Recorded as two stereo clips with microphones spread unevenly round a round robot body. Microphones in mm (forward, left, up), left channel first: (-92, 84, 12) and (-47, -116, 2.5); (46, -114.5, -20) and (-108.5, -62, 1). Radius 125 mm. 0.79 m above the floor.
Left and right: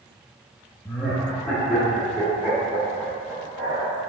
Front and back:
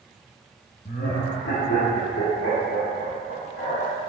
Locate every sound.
0.8 s laughter: 20° left, 0.7 m; by 4.0 s 5° right, 2.5 m